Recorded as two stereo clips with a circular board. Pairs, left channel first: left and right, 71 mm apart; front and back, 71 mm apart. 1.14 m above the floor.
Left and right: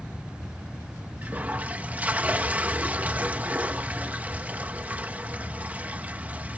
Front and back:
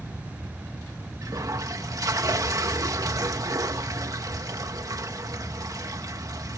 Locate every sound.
1.2 s a toilet flushing: 155° right